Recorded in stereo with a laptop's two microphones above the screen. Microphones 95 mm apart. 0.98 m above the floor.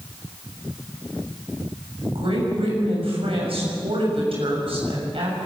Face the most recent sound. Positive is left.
turn(degrees=-80)